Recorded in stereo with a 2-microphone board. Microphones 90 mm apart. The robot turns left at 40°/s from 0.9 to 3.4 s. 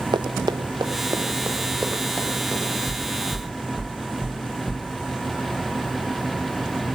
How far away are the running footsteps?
About 0.6 m.